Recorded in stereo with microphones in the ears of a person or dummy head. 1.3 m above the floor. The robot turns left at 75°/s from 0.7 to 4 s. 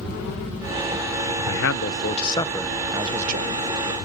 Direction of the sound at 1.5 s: 95° left.